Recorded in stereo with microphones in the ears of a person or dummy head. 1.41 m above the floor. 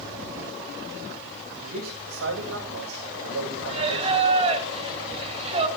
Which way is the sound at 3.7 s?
35° right (ahead or behind).